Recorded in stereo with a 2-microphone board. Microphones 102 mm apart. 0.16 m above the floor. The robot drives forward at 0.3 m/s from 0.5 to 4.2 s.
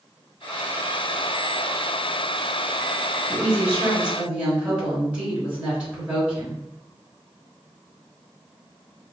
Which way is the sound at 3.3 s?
10° right (ahead or behind).